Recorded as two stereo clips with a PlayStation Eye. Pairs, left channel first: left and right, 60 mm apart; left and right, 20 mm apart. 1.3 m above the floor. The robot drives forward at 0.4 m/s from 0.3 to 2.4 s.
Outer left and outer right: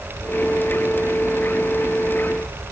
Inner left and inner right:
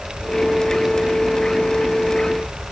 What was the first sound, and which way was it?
Only background noise.